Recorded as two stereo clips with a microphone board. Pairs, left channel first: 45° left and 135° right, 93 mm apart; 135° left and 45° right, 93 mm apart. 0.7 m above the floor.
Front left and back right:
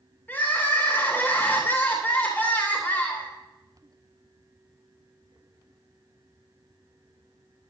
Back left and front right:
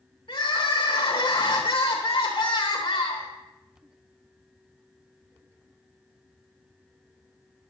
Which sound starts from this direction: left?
Crying, at 0.3 s.